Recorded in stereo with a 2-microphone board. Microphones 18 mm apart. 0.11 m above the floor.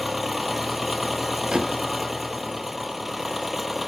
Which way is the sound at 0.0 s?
10° right (ahead or behind).